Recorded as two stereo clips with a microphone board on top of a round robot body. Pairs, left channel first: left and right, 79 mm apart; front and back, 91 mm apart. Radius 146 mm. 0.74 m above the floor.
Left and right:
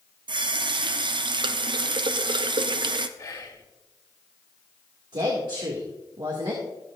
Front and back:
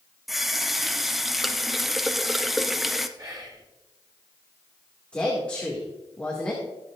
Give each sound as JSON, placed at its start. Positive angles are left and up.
{"t": 0.3, "sound": "a running tap", "azimuth_deg": -90, "distance_m": 0.7}
{"t": 3.2, "sound": "whispering", "azimuth_deg": 140, "distance_m": 3.0}
{"t": 5.1, "sound": "a woman speaking", "azimuth_deg": -75, "distance_m": 2.0}